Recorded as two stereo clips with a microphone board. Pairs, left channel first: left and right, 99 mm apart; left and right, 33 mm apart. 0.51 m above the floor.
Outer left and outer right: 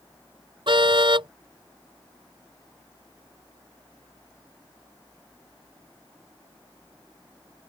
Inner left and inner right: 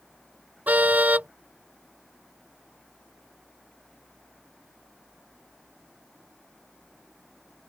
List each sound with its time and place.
0.7 s a car horn: 55° right (ahead or behind)